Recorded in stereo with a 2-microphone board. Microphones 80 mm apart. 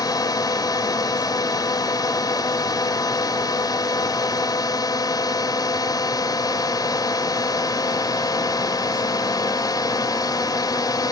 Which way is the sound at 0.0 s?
50° left (ahead or behind).